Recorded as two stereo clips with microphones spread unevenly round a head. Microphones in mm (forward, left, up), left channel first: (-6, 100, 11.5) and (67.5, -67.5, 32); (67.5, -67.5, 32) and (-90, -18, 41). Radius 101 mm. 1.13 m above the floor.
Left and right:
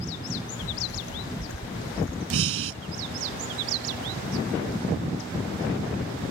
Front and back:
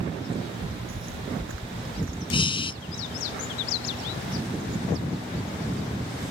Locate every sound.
0.4 s footsteps: 135° left; by 2.2 s 145° left
2.3 s breathing: 80° right